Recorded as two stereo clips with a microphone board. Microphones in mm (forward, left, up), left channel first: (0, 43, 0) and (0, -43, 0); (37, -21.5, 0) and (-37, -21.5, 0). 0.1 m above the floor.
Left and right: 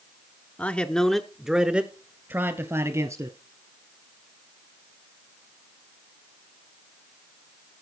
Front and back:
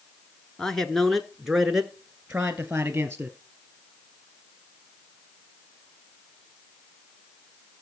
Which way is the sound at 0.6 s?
65° left.